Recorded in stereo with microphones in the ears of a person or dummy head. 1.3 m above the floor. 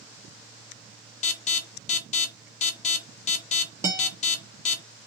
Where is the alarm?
40° left (ahead or behind), 0.6 m.